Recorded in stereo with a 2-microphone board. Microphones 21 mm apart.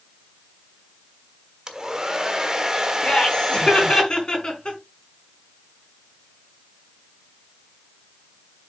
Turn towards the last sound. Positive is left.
turn(degrees=35)  # may be behind; listen again after turning